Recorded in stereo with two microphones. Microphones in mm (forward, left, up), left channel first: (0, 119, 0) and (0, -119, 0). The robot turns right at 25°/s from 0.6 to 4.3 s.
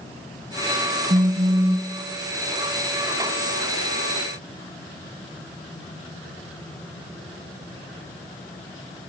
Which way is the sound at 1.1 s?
35° right (ahead or behind).